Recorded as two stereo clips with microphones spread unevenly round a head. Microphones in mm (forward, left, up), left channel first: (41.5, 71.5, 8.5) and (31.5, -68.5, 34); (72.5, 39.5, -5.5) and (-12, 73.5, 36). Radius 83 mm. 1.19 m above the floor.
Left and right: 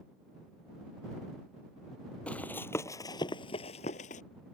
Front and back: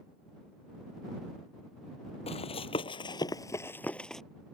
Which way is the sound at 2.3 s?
5° right.